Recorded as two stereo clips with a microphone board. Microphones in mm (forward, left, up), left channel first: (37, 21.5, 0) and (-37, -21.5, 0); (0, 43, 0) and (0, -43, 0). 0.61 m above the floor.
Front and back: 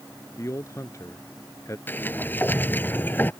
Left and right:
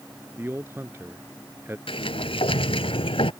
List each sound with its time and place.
0.4 s a man speaking: 25° right
1.9 s a sliding door: 100° left